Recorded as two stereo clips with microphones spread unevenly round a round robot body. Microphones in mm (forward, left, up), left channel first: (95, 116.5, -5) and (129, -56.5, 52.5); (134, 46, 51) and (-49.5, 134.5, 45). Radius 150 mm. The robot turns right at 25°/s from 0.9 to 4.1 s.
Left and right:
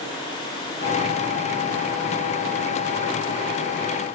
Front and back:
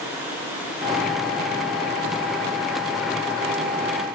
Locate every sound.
Only background noise.